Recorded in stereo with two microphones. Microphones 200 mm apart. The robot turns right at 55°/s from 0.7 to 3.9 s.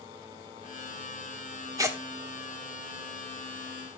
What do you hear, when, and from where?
1.8 s tearing paper: 20° right (ahead or behind), 1.3 m; by 2.0 s 10° right (ahead or behind), 1.3 m